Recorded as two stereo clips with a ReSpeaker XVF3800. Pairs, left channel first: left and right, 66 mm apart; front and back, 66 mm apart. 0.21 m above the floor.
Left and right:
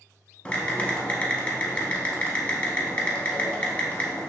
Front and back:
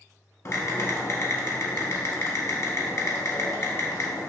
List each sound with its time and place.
0.5 s typing on a keyboard: 25° left, 0.6 m